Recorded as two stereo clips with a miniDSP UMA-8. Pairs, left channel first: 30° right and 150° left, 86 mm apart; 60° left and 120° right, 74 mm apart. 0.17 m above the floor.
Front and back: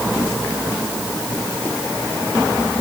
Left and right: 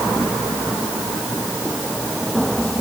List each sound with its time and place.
Only background noise.